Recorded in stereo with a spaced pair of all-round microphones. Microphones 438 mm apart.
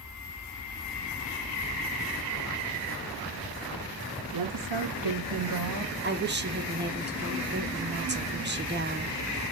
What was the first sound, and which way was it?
A woman speaking, 55° right (ahead or behind).